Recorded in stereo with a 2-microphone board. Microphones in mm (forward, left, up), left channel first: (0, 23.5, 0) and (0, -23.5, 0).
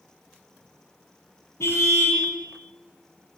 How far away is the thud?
No thud in this recording.